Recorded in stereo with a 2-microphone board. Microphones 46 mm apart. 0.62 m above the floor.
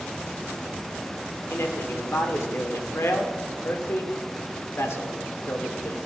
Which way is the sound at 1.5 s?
60° left (ahead or behind).